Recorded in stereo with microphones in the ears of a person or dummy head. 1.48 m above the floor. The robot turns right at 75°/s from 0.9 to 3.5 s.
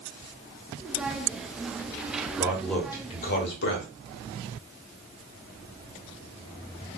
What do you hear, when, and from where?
2.4 s a man speaking: 20° right, 1.3 m; by 3.9 s 65° left, 1.3 m